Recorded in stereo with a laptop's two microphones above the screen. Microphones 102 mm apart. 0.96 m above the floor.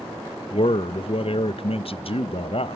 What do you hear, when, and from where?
0.5 s a man speaking: 60° left (ahead or behind), 0.5 m